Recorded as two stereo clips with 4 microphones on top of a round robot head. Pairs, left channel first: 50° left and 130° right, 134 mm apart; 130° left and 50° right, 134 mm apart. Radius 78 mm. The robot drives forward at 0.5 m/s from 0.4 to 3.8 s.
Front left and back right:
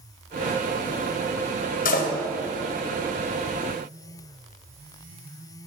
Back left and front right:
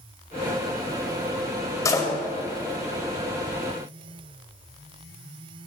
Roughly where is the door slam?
Ahead left.